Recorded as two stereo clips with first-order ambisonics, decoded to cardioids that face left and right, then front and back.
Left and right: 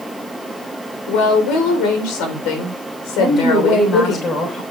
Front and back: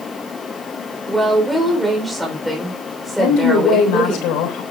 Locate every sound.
1.1 s a woman speaking: 95° left, 4 m
3.2 s a woman speaking: 25° left, 3 m